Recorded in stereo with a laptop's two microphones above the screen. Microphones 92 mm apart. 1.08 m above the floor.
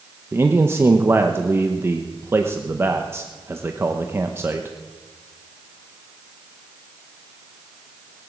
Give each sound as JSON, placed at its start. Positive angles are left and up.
{"t": 0.3, "sound": "a man speaking", "side_deg": -25, "distance_m": 0.8}